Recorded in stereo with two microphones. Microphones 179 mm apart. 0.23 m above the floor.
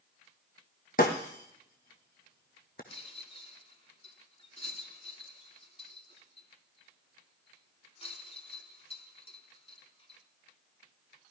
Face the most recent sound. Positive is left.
turn(degrees=35)  # may be behind; listen again after turning